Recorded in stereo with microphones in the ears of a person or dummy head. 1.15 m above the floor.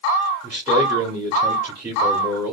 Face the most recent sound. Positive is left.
turn(degrees=-20)  # may be behind; listen again after turning